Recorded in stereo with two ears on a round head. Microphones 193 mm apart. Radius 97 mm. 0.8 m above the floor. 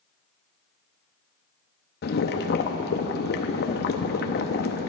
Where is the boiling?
45° left (ahead or behind), 0.7 m.